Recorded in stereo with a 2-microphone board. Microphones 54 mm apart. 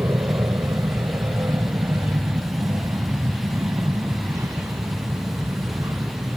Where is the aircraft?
65° right (ahead or behind); by 6.4 s 75° right (ahead or behind).